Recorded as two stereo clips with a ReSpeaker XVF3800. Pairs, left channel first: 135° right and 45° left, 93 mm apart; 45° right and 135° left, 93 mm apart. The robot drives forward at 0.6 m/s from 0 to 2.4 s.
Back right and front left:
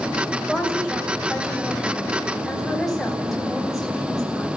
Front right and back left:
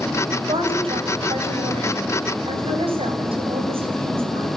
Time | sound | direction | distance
0.5 | a woman speaking | 125° left | 7.5 m